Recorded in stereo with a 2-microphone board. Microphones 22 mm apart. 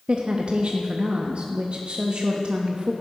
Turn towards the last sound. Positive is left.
turn(degrees=-50)  # may be behind; listen again after turning